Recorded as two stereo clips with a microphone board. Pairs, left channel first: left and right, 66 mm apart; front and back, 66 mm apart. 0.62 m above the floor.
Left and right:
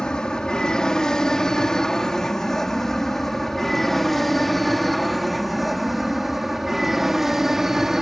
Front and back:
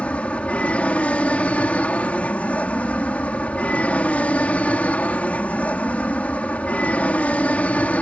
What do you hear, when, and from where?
0.0 s an aircraft: 30° left; by 8.0 s 15° right